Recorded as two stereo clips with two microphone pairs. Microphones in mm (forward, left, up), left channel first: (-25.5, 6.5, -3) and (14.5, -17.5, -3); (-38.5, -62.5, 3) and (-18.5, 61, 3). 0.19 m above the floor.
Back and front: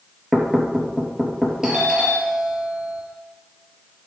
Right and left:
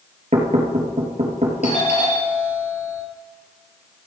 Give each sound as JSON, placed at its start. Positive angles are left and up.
{"t": 0.3, "sound": "knocking", "azimuth_deg": 70, "distance_m": 3.5}
{"t": 1.6, "sound": "a doorbell", "azimuth_deg": -110, "distance_m": 5.0}